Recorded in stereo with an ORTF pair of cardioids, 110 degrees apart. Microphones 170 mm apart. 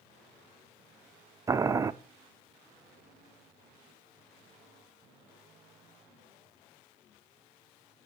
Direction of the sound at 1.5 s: 20° right.